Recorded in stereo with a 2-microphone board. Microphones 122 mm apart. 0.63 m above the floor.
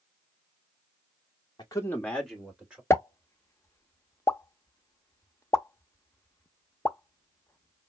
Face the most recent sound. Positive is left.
turn(degrees=20)  # may be behind; listen again after turning